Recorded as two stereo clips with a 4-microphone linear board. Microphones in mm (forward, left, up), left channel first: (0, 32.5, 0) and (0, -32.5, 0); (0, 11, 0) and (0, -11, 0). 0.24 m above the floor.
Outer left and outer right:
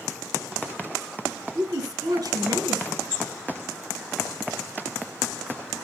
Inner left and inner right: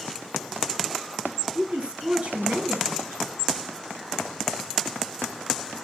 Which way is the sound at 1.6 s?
60° right (ahead or behind).